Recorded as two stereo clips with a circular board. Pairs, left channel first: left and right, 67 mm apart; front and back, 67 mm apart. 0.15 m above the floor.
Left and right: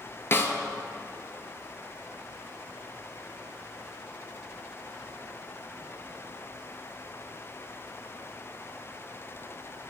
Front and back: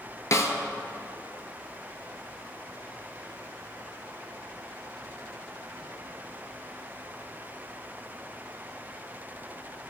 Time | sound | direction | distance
0.3 | a snare drum | 40° left | 0.5 m